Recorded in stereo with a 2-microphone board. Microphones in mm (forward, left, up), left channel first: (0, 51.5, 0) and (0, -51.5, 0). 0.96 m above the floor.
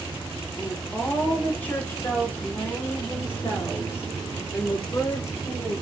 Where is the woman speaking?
15° left (ahead or behind), 2.5 m; by 5.7 s 25° left (ahead or behind), 5 m.